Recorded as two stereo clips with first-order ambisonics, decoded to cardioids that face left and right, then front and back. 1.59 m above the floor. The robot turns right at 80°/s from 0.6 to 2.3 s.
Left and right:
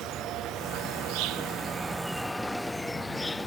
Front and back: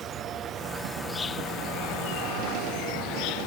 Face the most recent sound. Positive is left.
turn(degrees=10)